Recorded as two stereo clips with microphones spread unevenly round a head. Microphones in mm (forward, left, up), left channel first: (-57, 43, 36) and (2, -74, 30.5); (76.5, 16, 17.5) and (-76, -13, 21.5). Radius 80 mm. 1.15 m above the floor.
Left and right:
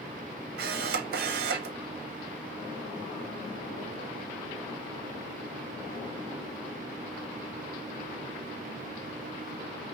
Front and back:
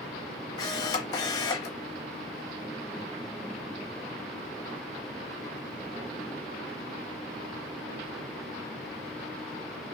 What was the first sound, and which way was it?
A camera shutter, 55° right.